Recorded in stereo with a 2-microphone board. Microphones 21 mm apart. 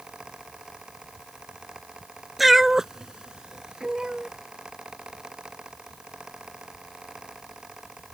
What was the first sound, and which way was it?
A cat meowing, centre (ahead or behind).